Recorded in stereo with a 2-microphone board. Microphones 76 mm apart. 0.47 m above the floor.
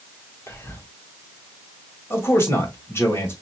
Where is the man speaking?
30° left (ahead or behind), 1.9 m.